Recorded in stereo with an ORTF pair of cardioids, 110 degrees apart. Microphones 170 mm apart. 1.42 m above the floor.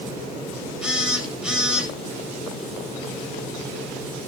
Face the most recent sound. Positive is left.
turn(degrees=-5)